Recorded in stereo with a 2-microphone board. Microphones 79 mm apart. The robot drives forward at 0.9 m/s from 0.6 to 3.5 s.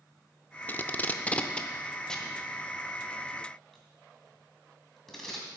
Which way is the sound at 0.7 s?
25° left (ahead or behind).